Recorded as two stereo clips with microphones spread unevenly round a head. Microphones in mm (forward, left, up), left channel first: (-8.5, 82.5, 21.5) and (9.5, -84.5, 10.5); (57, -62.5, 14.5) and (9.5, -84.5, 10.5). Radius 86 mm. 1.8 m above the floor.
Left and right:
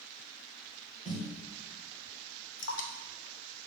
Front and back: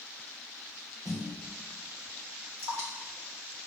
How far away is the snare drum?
About 2 m.